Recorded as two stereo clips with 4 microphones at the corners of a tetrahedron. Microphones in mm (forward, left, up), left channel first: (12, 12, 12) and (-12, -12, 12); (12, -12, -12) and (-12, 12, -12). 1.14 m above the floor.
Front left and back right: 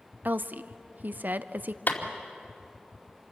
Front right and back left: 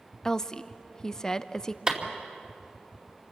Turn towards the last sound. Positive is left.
turn(degrees=70)